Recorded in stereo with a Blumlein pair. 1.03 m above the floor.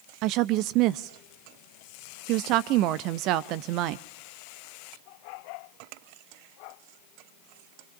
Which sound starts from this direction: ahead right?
A woman speaking, at 0.2 s.